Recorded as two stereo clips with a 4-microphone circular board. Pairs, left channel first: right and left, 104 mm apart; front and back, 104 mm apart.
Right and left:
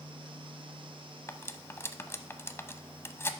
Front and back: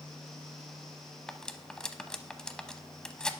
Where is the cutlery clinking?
75° right, 0.6 m.